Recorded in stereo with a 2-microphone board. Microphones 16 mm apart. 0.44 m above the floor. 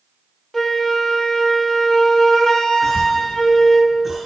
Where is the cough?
15° right (ahead or behind), 2.5 m.